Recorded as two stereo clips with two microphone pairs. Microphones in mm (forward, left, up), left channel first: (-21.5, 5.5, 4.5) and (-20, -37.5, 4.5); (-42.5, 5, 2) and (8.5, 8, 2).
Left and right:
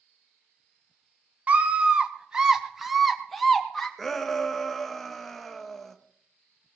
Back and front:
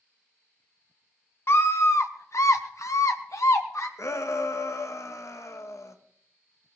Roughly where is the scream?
Behind right.